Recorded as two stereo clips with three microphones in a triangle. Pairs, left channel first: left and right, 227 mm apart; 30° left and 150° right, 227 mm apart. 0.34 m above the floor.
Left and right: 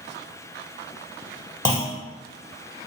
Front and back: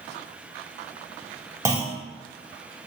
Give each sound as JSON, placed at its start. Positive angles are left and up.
{"t": 1.6, "sound": "a clunk", "azimuth_deg": 150, "distance_m": 0.9}